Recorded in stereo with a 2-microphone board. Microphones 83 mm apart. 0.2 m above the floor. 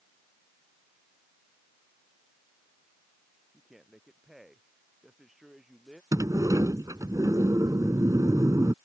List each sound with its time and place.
3.5 s a man speaking: 5° right (ahead or behind)
6.1 s a sliding door: 45° right (ahead or behind)